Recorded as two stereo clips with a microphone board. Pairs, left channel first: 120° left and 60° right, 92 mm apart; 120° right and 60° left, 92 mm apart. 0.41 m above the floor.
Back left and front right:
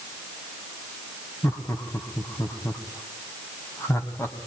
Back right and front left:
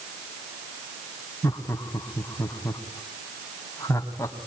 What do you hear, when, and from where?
1.4 s laughter: straight behind, 2.5 m